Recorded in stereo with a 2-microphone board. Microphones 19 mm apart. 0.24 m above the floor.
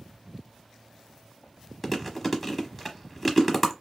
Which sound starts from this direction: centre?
Chewing, at 1.8 s.